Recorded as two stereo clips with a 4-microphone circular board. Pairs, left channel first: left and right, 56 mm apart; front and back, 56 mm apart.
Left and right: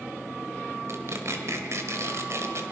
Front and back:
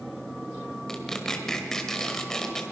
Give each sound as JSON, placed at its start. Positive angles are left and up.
{"t": 0.9, "sound": "tearing paper", "azimuth_deg": -80, "distance_m": 2.0}